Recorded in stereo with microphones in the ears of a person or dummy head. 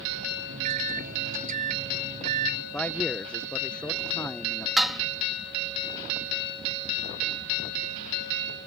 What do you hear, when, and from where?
0.5 s a microwave: 50° right (ahead or behind)
2.7 s a man speaking: 10° left (ahead or behind)
4.8 s dishes clattering: centre (ahead or behind)